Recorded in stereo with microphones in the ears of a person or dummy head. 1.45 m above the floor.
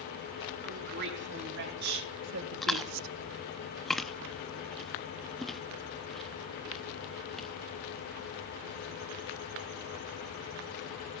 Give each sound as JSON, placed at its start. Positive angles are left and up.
{"t": 0.6, "sound": "a woman speaking", "side_deg": -55, "distance_m": 3.5}
{"t": 2.6, "sound": "chewing", "side_deg": 0, "distance_m": 0.5}